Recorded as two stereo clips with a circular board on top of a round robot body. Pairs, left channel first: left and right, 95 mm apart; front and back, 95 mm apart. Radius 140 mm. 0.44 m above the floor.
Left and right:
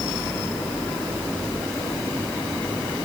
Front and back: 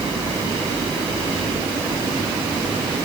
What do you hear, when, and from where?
Only background noise.